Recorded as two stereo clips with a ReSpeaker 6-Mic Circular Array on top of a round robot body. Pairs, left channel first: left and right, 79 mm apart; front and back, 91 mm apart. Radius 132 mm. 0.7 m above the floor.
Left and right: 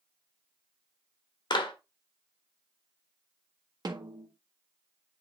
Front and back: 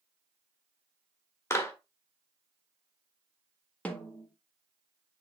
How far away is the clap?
About 1.5 m.